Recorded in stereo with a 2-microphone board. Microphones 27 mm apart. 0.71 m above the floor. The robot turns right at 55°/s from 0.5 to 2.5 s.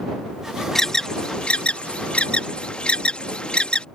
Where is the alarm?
15° left (ahead or behind); by 3.9 s 40° left (ahead or behind).